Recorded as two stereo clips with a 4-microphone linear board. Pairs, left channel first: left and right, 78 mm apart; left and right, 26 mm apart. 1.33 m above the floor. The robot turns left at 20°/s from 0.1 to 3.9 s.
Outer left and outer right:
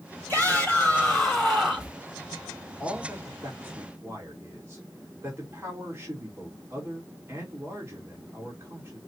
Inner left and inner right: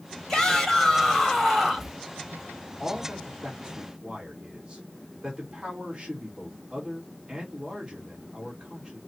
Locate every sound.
0.3 s a shout: 25° left, 4.5 m; by 1.9 s 10° right, 4.5 m
2.8 s a man speaking: 10° right (ahead or behind), 3 m; by 9.0 s 30° right (ahead or behind), 3 m